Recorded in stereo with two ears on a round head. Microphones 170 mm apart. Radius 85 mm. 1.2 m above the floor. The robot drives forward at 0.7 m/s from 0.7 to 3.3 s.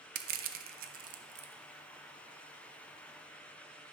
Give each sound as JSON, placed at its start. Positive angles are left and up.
{"t": 0.1, "sound": "crushing", "side_deg": -50, "distance_m": 0.7}